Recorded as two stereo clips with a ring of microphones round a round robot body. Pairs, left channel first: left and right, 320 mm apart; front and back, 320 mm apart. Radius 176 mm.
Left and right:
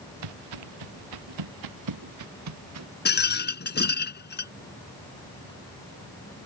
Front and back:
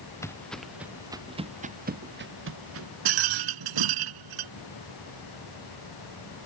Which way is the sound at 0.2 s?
80° right.